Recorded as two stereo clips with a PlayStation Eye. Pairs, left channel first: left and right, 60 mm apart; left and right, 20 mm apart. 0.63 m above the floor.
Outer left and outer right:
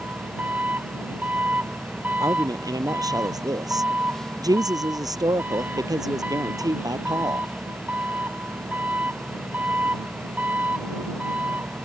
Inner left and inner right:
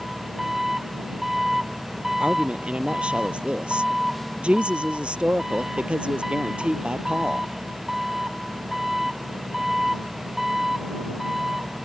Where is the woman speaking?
85° right.